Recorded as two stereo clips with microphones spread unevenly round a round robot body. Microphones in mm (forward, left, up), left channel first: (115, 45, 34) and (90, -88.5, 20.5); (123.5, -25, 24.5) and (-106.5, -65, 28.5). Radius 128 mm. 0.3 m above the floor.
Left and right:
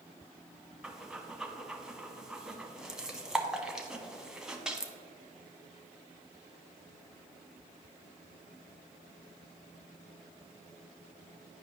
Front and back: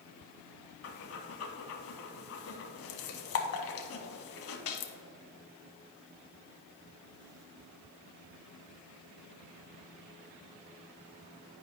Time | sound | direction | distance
0.8 | breathing | 15° right | 0.9 m